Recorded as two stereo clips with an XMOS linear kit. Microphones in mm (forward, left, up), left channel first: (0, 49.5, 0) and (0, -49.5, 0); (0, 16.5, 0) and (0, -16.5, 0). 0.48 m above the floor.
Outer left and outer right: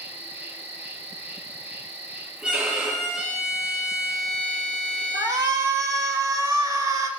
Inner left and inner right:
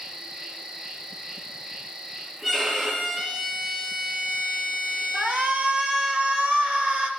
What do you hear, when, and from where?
0.0 s an insect: 20° right (ahead or behind), 1.2 m
2.4 s a violin: 10° right (ahead or behind), 5 m
5.1 s a shout: 35° right (ahead or behind), 1.8 m